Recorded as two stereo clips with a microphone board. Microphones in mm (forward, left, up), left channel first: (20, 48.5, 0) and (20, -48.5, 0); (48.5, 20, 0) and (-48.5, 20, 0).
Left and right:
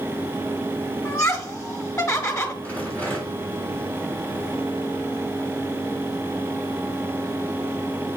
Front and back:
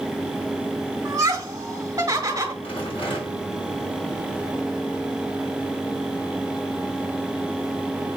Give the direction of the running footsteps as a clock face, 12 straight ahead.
No running footsteps in this recording.